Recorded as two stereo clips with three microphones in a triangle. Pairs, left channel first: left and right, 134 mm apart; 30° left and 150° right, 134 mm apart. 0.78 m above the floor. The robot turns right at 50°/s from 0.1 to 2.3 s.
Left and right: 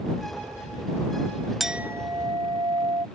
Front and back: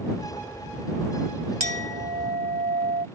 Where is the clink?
Straight behind; by 3.1 s 145° right.